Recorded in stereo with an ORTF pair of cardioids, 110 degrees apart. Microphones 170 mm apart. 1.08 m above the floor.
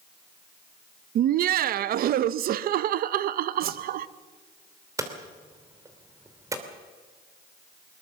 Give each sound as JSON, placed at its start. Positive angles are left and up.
{"t": 1.1, "sound": "laughter", "azimuth_deg": -60, "distance_m": 0.7}
{"t": 3.6, "sound": "a whoosh", "azimuth_deg": -65, "distance_m": 1.2}
{"t": 5.0, "sound": "hammering", "azimuth_deg": -20, "distance_m": 3.0}